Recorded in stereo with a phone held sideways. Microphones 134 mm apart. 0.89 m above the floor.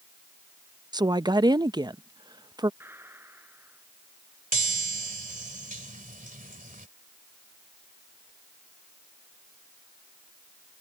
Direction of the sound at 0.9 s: 30° right (ahead or behind).